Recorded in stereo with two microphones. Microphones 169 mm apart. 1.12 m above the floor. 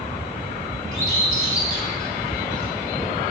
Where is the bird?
55° right (ahead or behind), 3.5 m.